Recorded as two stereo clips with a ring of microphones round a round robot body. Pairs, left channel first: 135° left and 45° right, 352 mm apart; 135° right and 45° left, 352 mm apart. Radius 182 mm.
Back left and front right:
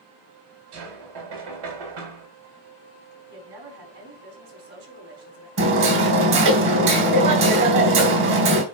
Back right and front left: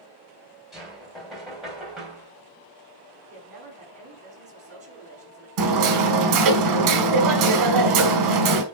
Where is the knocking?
45° right, 3 m.